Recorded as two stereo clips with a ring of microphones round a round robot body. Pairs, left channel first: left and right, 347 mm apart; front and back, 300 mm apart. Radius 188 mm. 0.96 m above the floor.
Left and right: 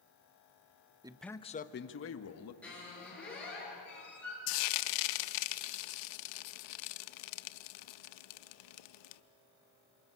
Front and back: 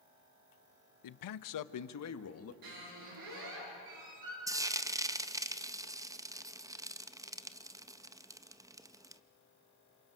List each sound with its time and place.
1.0 s a man speaking: 15° right, 0.6 m; by 2.5 s 45° left, 1.5 m
2.6 s a squeak: 175° left, 9.5 m
4.5 s frying: 100° left, 0.7 m